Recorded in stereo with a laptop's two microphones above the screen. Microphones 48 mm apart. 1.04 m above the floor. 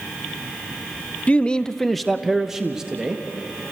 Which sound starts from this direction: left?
A man speaking, at 1.3 s.